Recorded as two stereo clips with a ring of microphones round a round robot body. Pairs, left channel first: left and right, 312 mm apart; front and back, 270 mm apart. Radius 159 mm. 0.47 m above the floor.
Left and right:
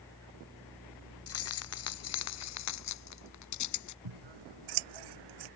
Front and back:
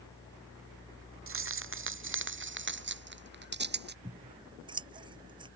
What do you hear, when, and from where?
1.3 s keys jangling: 140° left; by 4.0 s 125° left
4.0 s scissors: 105° right